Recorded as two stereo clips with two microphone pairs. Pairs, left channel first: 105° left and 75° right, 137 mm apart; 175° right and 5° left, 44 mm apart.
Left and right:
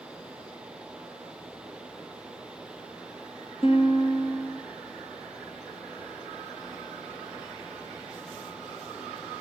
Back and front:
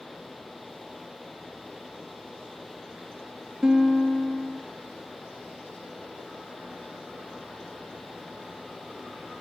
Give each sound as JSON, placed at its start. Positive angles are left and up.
{"t": 3.6, "sound": "a guitar", "azimuth_deg": 75, "distance_m": 2.5}